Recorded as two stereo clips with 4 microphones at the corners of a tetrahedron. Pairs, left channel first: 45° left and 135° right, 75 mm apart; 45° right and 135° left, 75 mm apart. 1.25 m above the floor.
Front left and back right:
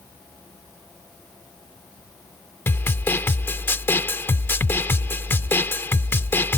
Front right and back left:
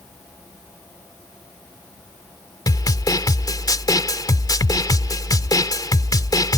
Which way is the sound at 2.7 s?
15° right.